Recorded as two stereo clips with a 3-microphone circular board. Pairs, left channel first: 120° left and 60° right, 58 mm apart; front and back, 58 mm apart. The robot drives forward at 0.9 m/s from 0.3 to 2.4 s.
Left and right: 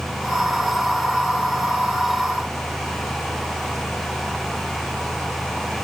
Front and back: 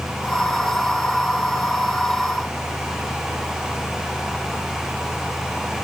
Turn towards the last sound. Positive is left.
No sound to turn to.